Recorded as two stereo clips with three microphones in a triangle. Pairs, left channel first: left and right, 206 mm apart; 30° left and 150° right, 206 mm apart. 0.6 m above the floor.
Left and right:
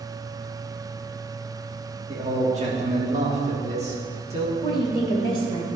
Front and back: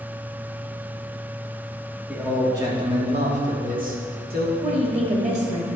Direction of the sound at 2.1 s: 75° right.